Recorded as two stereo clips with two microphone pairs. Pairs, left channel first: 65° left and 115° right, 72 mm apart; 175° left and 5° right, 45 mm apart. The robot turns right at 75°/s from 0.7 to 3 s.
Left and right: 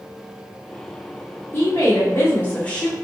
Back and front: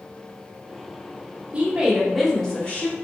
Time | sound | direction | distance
1.5 | a woman speaking | 40° left | 0.8 m